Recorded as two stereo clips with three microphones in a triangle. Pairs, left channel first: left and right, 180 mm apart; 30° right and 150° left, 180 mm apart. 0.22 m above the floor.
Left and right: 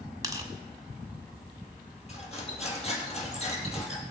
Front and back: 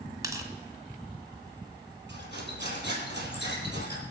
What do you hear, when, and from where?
0.2 s tearing paper: 150° right, 1.5 m
2.1 s cutlery clinking: 140° left, 3.5 m